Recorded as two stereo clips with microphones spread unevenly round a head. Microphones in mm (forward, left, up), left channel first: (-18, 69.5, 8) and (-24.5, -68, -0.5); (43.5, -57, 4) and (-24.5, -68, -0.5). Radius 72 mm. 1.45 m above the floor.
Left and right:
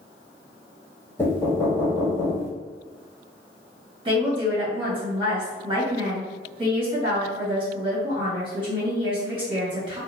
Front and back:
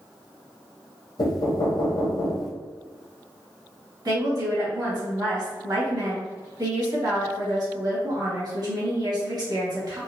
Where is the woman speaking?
145° right, 1.7 m.